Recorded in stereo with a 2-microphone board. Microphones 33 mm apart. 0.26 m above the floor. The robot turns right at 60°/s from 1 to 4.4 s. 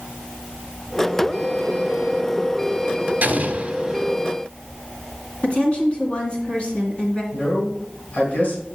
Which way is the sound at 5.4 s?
35° left (ahead or behind).